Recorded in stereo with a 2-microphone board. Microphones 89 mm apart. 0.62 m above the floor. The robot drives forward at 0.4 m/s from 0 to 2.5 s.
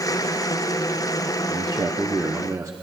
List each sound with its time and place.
1.5 s a man speaking: 45° right (ahead or behind), 0.8 m; by 2.7 s 40° right (ahead or behind), 0.9 m